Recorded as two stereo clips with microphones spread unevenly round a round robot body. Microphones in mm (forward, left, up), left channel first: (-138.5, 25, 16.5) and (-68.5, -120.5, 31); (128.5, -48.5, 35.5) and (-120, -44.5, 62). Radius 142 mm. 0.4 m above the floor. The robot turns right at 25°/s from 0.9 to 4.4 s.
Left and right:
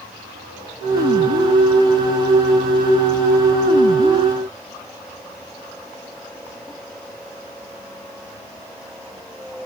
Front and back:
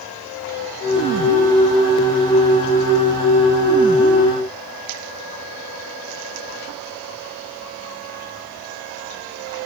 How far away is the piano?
No piano in this recording.